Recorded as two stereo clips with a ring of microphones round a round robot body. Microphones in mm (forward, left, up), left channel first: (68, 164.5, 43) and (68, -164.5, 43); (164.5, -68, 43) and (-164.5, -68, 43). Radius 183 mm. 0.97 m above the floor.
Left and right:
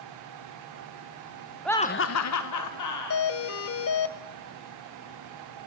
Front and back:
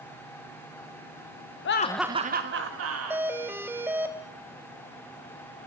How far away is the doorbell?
About 0.7 m.